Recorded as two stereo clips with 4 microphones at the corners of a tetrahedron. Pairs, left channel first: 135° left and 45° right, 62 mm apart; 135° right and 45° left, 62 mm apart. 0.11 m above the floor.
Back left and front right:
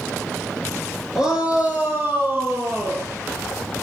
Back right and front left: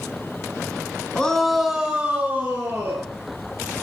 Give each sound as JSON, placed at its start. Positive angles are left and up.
{"t": 1.1, "sound": "a shout", "azimuth_deg": -100, "distance_m": 1.1}